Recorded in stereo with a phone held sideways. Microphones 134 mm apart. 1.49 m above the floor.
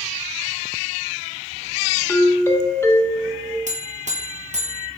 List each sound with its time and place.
2.1 s a doorbell: 20° left (ahead or behind), 1.0 m
3.7 s a buzzer: 60° right (ahead or behind), 1.1 m